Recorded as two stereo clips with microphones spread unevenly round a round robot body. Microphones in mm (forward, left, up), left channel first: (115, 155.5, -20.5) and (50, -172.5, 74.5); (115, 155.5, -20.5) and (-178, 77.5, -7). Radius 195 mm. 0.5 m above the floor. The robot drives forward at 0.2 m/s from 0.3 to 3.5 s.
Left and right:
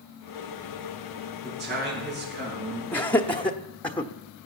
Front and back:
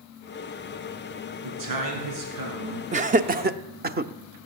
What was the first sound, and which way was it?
A man speaking, 170° right.